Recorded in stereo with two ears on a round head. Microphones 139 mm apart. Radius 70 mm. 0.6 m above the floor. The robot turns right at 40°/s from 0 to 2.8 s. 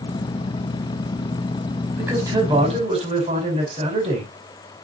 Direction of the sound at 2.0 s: 170° right.